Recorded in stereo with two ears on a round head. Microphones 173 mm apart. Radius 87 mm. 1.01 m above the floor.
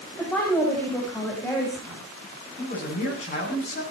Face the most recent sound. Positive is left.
turn(degrees=35)  # may be behind; listen again after turning